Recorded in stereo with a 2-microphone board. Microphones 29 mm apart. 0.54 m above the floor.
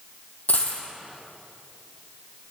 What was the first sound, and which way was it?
A dropped coin, 70° left (ahead or behind).